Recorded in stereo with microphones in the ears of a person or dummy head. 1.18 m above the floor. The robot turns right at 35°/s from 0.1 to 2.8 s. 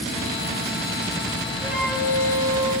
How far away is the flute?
About 3 m.